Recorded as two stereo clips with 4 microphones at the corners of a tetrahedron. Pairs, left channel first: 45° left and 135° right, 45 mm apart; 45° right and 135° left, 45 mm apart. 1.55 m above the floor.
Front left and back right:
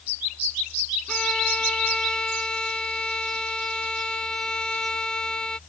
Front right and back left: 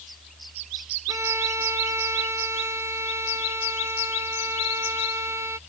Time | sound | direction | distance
1.1 | a violin | 120° left | ?